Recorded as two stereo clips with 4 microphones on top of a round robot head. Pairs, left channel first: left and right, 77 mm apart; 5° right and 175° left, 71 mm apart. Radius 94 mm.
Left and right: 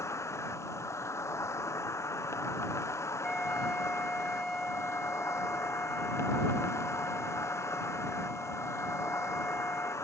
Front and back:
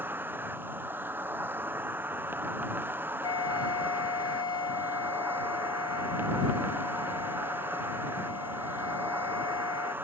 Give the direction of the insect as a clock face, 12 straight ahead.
8 o'clock.